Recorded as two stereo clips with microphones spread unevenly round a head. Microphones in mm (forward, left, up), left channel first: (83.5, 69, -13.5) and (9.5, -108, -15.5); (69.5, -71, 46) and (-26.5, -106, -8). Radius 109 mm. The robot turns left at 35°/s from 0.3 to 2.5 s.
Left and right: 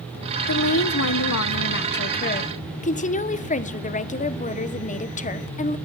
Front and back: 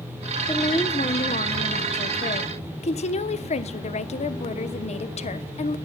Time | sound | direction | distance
0.5 | a woman speaking | 85° left | 1.1 m